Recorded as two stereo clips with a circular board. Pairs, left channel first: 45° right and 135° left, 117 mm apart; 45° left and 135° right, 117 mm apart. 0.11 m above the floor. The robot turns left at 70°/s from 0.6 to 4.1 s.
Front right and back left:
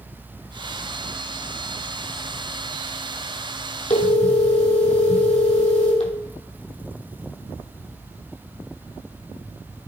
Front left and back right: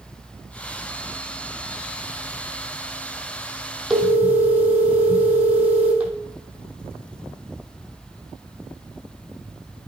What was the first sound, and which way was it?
A phone ringing, 45° right.